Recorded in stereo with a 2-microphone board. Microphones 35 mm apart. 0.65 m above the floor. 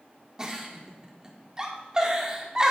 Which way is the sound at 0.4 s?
20° right (ahead or behind).